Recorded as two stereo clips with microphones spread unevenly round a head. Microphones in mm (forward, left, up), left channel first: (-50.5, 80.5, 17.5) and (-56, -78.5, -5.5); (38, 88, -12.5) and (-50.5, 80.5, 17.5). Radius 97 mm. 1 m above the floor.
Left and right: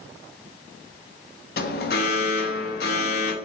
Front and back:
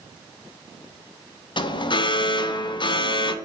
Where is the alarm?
45° left, 0.6 m.